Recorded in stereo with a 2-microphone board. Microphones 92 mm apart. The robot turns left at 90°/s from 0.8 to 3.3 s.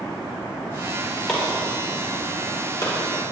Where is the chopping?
Centre (ahead or behind), 5 m; by 2.9 s 35° left (ahead or behind), 5 m.